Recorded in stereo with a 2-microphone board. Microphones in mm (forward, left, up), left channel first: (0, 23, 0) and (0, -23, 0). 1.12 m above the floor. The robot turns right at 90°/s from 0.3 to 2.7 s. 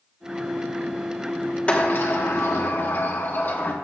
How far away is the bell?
No bell in this recording.